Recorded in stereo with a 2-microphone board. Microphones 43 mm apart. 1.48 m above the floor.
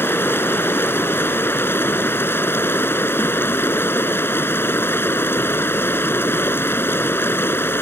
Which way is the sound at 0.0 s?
60° left (ahead or behind).